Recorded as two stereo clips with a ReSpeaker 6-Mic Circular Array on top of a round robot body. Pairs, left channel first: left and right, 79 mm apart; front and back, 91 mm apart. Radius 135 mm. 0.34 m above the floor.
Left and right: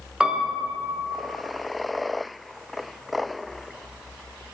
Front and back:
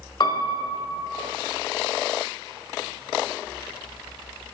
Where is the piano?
15° right, 1.1 m.